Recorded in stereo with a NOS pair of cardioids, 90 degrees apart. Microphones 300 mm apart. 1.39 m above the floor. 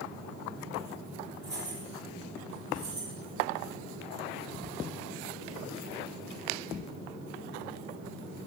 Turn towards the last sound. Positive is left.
turn(degrees=-60)